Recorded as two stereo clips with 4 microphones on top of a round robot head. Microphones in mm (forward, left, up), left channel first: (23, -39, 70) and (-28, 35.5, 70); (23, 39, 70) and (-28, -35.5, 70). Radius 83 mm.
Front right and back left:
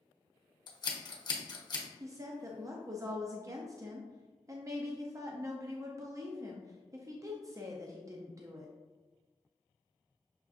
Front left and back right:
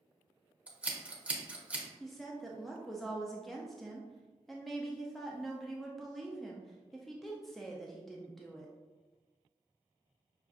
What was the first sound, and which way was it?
Scissors, 50° right.